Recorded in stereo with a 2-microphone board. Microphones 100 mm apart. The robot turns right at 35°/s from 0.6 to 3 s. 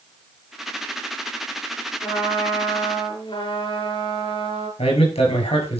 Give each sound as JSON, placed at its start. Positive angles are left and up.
{"t": 2.0, "sound": "a trumpet", "azimuth_deg": 20, "distance_m": 8.5}
{"t": 4.8, "sound": "a man speaking", "side_deg": 80, "distance_m": 8.0}